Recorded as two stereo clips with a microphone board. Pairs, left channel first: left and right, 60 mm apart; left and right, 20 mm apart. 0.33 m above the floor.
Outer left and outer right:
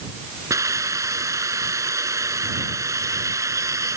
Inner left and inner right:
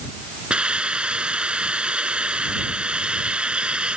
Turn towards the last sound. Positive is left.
turn(degrees=-60)  # may be behind; listen again after turning